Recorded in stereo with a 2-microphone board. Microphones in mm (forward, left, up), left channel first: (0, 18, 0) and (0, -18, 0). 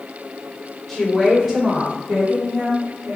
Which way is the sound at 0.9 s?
5° left (ahead or behind).